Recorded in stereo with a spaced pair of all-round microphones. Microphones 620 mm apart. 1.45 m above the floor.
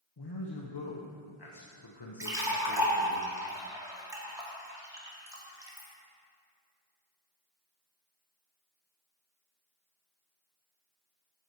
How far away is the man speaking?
About 0.9 m.